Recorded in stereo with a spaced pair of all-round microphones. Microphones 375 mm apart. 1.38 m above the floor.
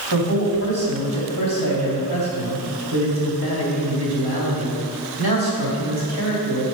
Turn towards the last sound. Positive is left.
turn(degrees=-75)  # may be behind; listen again after turning